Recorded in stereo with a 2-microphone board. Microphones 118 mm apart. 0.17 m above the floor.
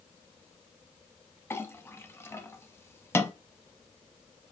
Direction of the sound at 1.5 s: 20° left (ahead or behind).